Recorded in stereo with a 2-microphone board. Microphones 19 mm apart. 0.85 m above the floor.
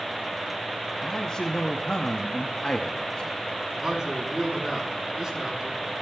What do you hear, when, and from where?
1.0 s a man speaking: 40° left (ahead or behind), 0.9 m
3.8 s a man speaking: 30° right (ahead or behind), 7.5 m